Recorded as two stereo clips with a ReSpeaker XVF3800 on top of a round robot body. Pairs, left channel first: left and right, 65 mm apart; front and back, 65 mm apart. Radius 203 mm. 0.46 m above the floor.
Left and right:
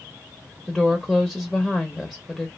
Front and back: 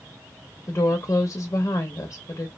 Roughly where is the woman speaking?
Ahead.